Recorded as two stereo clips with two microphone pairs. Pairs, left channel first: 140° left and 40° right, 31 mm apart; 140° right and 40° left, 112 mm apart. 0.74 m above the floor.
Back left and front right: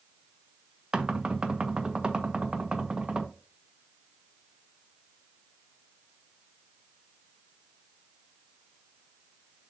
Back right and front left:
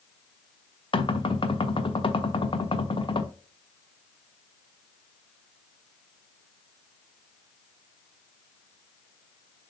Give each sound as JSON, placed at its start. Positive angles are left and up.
{"t": 0.9, "sound": "knocking", "azimuth_deg": -100, "distance_m": 0.9}